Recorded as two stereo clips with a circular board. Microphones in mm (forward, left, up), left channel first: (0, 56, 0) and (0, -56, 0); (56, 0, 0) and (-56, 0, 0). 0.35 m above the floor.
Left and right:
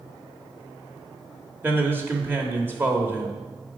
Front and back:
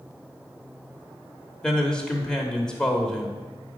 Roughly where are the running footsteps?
I don't hear running footsteps.